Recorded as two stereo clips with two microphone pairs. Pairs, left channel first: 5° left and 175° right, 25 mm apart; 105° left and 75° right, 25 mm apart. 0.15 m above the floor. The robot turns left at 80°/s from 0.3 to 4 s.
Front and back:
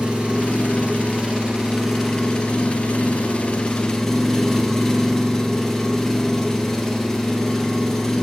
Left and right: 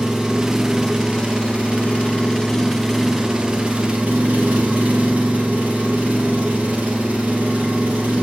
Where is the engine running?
130° right, 2 m; by 8.2 s 65° right, 2 m.